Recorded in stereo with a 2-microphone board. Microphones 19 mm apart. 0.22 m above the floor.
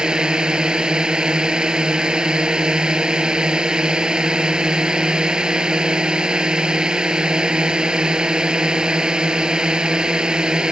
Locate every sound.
0.0 s a drone: 50° right (ahead or behind)